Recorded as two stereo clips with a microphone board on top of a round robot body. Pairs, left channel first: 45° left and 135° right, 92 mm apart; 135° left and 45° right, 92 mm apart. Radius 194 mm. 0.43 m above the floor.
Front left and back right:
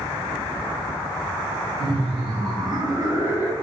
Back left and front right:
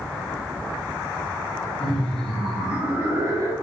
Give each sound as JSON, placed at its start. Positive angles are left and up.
{"t": 1.8, "sound": "laughter", "azimuth_deg": -145, "distance_m": 1.7}